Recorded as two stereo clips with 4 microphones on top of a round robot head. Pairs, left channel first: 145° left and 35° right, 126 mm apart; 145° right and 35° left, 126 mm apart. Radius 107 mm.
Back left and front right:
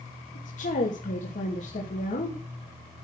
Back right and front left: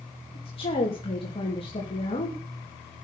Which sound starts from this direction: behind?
A woman speaking, at 0.3 s.